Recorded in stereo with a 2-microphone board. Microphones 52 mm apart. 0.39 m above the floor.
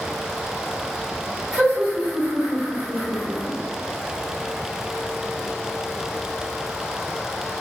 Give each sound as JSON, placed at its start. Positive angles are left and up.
{"t": 1.5, "sound": "laughter", "side_deg": -25, "distance_m": 1.5}